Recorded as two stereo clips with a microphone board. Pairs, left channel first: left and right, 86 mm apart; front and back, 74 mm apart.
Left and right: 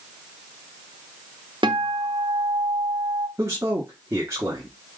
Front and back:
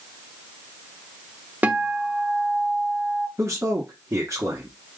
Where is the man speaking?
140° right, 1.3 m.